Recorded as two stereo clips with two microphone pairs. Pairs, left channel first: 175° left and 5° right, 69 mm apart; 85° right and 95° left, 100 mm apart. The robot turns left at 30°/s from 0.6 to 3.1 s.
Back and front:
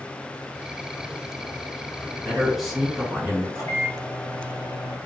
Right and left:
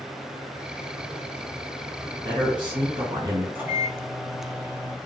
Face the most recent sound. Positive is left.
turn(degrees=160)